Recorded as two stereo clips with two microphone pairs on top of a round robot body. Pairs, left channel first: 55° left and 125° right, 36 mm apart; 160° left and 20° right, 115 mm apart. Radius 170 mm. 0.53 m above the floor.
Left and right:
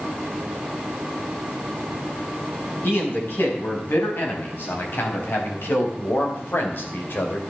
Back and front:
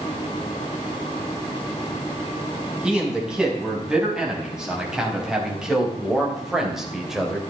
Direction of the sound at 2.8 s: 65° left.